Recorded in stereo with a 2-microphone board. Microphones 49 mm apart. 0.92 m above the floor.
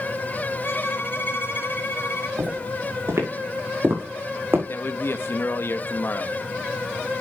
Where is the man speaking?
50° left (ahead or behind), 1.0 m.